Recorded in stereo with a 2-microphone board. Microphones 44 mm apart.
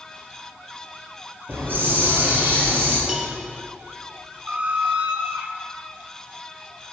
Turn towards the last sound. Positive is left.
turn(degrees=-30)  # may be behind; listen again after turning